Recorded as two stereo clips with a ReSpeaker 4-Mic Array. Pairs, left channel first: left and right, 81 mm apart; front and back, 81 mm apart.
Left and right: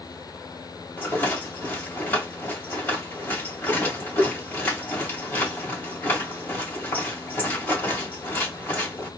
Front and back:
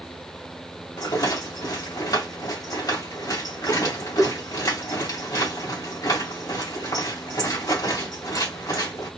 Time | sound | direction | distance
1.0 | a rattle | 25° left | 2 m